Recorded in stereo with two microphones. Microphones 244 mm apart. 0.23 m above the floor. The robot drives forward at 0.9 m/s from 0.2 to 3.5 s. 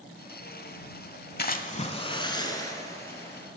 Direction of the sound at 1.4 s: 40° left (ahead or behind).